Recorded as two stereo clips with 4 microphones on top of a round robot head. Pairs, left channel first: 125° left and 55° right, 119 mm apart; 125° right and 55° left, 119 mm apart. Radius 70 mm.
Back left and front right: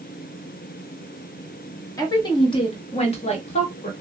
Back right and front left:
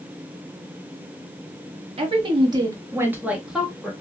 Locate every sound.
2.0 s a woman speaking: 75° left, 1.2 m; by 3.9 s 150° left, 1.4 m